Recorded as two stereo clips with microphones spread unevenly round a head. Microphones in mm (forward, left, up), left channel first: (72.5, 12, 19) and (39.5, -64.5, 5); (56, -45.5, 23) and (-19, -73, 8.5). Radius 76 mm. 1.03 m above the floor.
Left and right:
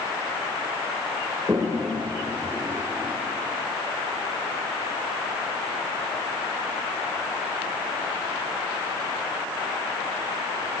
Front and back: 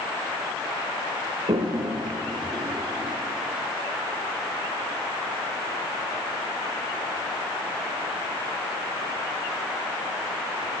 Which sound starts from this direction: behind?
A toilet flushing, at 1.5 s.